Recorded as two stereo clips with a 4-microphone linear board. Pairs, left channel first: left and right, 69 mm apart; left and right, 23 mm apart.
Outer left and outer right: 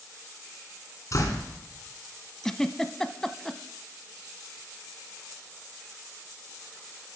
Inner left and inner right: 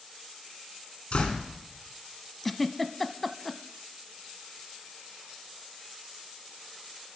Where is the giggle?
10° left (ahead or behind), 0.6 m.